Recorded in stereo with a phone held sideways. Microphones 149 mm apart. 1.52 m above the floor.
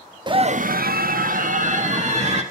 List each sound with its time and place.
0.3 s a scream: 30° right (ahead or behind), 0.9 m; by 2.4 s 50° right (ahead or behind), 3 m